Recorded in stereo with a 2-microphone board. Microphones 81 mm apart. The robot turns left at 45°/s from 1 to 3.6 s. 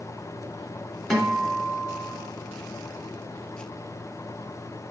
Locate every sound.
1.1 s a guitar: 175° left, 1.5 m; by 2.1 s 130° left, 1.5 m